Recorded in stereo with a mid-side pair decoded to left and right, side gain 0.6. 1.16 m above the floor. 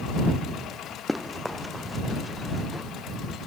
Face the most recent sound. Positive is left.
turn(degrees=5)